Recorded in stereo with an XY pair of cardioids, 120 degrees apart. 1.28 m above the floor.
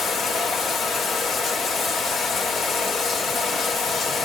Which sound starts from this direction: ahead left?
Running water, at 0.0 s.